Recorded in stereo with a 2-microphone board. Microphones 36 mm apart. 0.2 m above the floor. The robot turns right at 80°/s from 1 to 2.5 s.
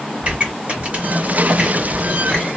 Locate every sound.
0.2 s a pop: 40° right (ahead or behind), 1.9 m; by 2.5 s 30° left (ahead or behind), 1.9 m